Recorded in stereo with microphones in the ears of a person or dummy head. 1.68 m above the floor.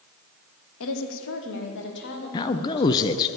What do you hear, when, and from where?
0.8 s a woman speaking: 75° left (ahead or behind), 1.2 m; by 3.3 s 55° left (ahead or behind), 2.5 m
2.3 s a man speaking: 20° left (ahead or behind), 0.5 m